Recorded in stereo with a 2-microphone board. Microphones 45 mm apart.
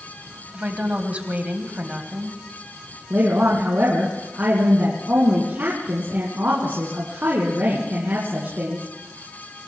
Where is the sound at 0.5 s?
30° right (ahead or behind), 1.6 m.